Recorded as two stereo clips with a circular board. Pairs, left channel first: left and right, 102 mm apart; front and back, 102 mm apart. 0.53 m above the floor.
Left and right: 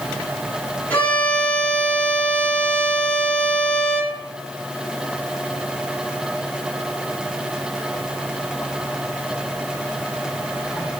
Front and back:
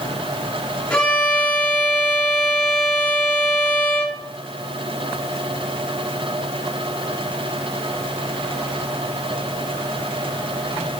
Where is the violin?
60° left, 1.3 m.